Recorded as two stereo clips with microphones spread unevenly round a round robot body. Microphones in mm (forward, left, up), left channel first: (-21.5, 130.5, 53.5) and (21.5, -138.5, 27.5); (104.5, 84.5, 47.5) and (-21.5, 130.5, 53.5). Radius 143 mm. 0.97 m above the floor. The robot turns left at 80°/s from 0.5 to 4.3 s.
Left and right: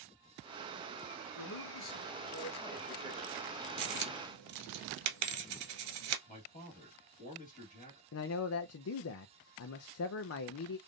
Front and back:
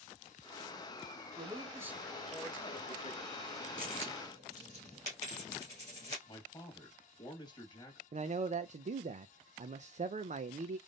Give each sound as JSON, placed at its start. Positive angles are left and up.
{"t": 1.4, "sound": "a man speaking", "azimuth_deg": 125, "distance_m": 1.4}
{"t": 3.8, "sound": "a dropped coin", "azimuth_deg": -55, "distance_m": 1.3}
{"t": 6.3, "sound": "a man speaking", "azimuth_deg": 35, "distance_m": 1.8}
{"t": 8.1, "sound": "a man speaking", "azimuth_deg": 135, "distance_m": 0.5}